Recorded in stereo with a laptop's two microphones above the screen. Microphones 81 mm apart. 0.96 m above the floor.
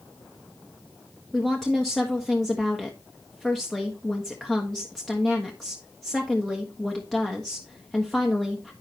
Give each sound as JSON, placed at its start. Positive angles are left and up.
{"t": 1.3, "sound": "a woman speaking", "side_deg": 5, "distance_m": 1.3}